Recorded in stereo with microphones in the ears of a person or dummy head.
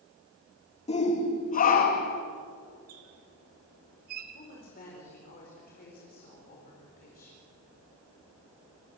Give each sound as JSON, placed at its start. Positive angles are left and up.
{"t": 0.9, "sound": "a shout", "side_deg": 30, "distance_m": 2.0}
{"t": 2.9, "sound": "a squeak", "side_deg": -50, "distance_m": 1.7}
{"t": 4.3, "sound": "a woman speaking", "side_deg": 45, "distance_m": 5.0}